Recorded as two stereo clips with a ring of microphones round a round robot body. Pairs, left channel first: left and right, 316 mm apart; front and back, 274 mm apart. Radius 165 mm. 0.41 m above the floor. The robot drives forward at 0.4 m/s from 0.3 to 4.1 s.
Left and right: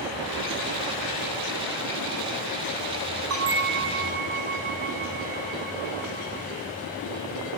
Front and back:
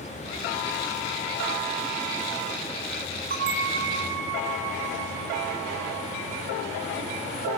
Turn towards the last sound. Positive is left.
turn(degrees=-145)